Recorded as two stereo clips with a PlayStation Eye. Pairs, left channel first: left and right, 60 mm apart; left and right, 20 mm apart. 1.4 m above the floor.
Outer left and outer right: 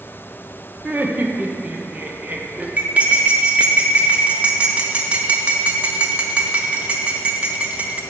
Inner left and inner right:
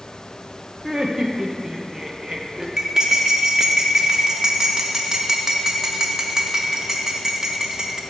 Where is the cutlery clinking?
25° right (ahead or behind), 0.7 m.